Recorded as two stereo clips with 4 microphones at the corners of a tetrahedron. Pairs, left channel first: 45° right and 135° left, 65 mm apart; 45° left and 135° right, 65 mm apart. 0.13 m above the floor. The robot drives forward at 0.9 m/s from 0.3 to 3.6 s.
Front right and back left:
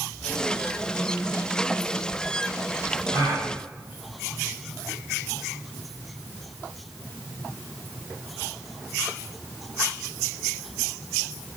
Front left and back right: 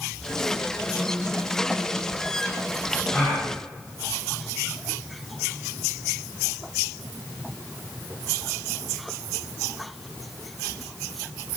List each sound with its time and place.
3.1 s a gasp: 115° left, 3 m; by 3.5 s 120° left, 3 m